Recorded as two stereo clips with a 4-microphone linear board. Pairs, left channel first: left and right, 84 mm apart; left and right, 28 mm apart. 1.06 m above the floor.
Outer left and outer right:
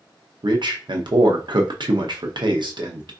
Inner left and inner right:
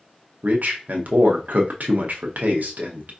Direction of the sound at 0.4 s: 70° right (ahead or behind).